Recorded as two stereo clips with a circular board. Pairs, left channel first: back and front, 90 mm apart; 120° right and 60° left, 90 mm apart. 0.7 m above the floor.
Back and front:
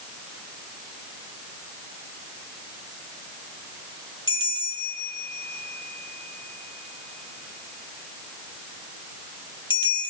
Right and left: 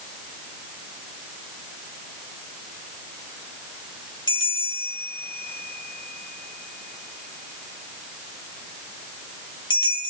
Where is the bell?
155° right, 3 m.